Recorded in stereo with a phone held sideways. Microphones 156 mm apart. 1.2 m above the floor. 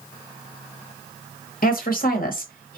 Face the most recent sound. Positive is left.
turn(degrees=65)  # may be behind; listen again after turning